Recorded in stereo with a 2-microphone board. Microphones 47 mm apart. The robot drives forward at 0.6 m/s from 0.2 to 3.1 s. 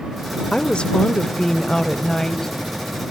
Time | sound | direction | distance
0.5 | a woman speaking | 20° left (ahead or behind) | 0.9 m